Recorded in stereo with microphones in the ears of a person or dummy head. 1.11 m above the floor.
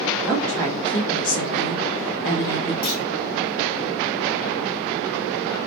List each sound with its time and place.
0.2 s a woman speaking: 5° right (ahead or behind), 0.6 m; by 2.7 s 70° left (ahead or behind), 1.3 m
2.8 s a clunk: 50° left (ahead or behind), 0.7 m